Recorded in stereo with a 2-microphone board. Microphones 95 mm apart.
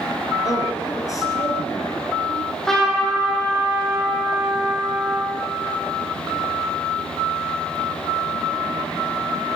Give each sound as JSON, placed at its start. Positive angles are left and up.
{"t": 0.5, "sound": "a man speaking", "side_deg": 35, "distance_m": 1.9}
{"t": 2.3, "sound": "a trumpet", "side_deg": 5, "distance_m": 4.0}